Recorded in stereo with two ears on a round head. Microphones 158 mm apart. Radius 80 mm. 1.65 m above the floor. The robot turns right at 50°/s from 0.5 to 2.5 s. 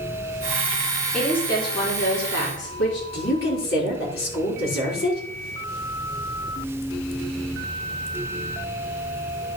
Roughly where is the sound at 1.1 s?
Ahead.